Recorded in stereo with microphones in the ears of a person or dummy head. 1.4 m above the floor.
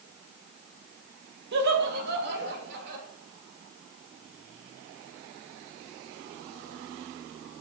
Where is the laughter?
65° right (ahead or behind), 1.7 m.